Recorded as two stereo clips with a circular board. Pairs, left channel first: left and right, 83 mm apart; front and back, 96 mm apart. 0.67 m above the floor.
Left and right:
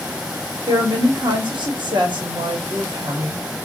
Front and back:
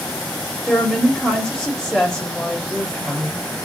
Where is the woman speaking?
85° right, 1.2 m.